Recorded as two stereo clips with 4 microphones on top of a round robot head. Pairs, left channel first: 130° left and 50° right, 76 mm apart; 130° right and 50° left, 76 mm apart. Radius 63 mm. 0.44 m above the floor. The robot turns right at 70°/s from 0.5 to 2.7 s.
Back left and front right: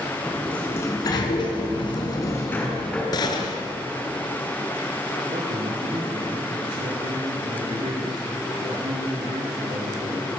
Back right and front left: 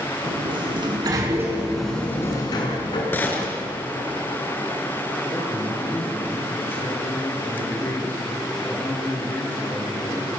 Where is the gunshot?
165° left, 3 m.